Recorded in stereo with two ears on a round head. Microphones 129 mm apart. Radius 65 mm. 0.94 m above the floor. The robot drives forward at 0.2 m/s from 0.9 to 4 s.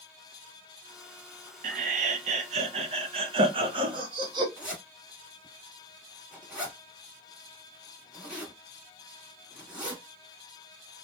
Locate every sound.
1.6 s laughter: 60° right (ahead or behind), 0.5 m; by 4.5 s 35° right (ahead or behind), 0.7 m
4.6 s a zipper: 5° right (ahead or behind), 1.3 m